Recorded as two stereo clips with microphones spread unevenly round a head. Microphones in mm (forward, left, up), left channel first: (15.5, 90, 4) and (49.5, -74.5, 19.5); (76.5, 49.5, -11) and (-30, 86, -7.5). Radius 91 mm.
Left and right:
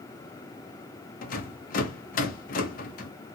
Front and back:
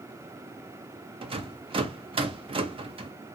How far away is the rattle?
About 0.6 m.